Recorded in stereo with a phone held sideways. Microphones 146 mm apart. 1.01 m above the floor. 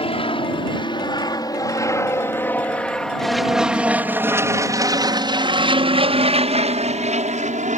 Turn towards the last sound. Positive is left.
turn(degrees=-55)  # may be behind; listen again after turning